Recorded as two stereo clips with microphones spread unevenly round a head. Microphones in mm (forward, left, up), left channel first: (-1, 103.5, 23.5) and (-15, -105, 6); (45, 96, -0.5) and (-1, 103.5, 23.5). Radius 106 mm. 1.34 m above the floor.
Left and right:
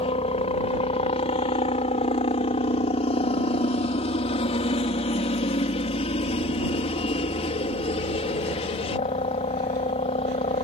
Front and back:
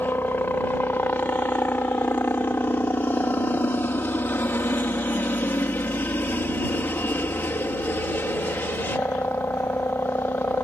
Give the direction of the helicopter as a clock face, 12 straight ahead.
11 o'clock.